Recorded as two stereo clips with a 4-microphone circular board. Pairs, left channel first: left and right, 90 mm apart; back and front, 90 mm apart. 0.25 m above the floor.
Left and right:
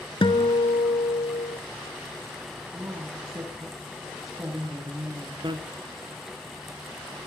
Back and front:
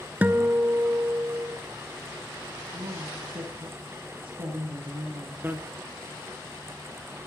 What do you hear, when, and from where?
0.2 s a guitar: 70° left, 0.8 m
2.7 s a woman speaking: 30° right, 6.5 m
5.4 s a bicycle bell: 65° right, 2 m